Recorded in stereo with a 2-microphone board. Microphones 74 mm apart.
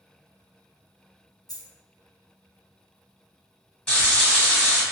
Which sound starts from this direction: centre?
Frying, at 3.9 s.